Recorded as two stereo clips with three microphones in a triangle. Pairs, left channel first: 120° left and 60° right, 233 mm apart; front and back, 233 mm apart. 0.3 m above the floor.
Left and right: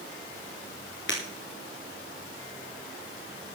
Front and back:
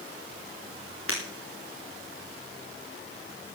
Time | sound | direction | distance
1.1 | breaking glass | 155° left | 4.5 m